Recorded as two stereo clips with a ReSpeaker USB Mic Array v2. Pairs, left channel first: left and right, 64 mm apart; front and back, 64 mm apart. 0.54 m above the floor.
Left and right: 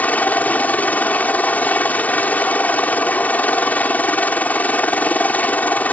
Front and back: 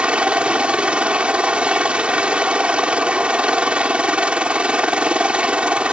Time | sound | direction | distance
0.0 | a helicopter | 125° left | ?